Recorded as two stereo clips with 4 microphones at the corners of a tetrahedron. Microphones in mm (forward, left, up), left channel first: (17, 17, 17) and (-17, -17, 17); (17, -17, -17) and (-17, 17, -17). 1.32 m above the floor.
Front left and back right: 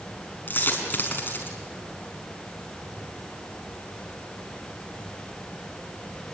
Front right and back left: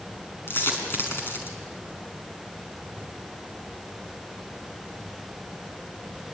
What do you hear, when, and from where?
0.5 s a dropped coin: 5° right, 5.5 m